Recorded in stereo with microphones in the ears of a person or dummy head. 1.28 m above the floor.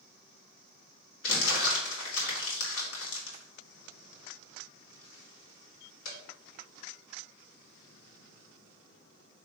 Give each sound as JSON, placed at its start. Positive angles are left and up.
{"t": 1.2, "sound": "crumpling", "side_deg": 85, "distance_m": 2.5}